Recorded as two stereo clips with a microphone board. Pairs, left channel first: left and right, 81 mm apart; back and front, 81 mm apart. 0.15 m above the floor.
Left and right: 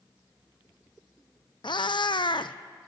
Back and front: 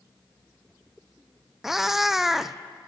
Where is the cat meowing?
85° left, 0.5 m.